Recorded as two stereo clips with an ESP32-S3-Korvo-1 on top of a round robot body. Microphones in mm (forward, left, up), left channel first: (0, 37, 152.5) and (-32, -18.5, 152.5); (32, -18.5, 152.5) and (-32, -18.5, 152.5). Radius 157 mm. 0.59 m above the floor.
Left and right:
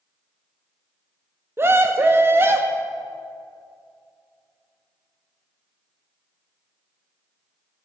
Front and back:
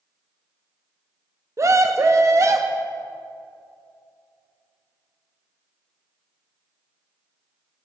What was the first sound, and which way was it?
A scream, 160° right.